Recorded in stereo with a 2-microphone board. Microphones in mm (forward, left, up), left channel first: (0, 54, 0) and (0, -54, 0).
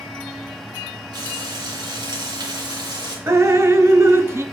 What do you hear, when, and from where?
1.1 s frying: 40° right (ahead or behind), 2.5 m
3.3 s dripping: 25° right (ahead or behind), 0.5 m